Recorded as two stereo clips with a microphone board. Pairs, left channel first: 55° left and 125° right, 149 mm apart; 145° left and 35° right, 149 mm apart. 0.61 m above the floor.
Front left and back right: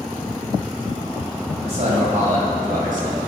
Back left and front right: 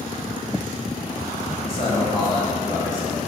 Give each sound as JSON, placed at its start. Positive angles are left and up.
{"t": 1.6, "sound": "a man speaking", "azimuth_deg": -165, "distance_m": 2.5}